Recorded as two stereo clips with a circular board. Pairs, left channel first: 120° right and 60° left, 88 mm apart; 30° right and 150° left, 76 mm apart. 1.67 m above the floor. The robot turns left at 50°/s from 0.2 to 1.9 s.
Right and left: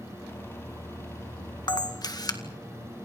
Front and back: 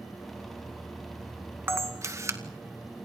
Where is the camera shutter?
150° right, 2.0 m; by 2.4 s 160° right, 2.0 m.